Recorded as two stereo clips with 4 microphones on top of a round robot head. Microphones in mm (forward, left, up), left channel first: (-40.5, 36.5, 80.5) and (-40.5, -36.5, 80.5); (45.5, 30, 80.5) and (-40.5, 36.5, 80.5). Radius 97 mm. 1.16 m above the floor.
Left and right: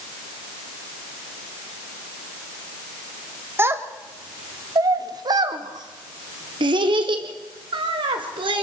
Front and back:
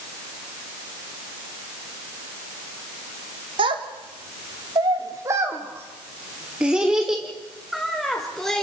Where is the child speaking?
150° right, 1.7 m; by 8.6 s 90° right, 3 m.